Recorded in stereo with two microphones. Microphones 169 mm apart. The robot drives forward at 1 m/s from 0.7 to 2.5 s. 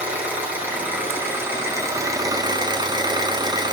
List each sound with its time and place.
0.0 s an engine running: 10° right (ahead or behind), 3 m; by 3.7 s 25° right (ahead or behind), 1.3 m